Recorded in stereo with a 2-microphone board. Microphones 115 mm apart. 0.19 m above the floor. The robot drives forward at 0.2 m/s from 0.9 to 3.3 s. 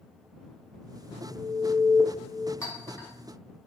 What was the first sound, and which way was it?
An alarm, 25° left (ahead or behind).